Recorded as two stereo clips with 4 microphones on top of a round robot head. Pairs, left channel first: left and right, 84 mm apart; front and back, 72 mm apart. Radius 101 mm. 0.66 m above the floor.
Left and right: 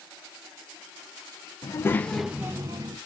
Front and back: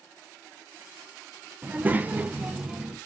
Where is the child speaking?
120° left, 0.7 m; by 3.0 s 100° right, 0.7 m.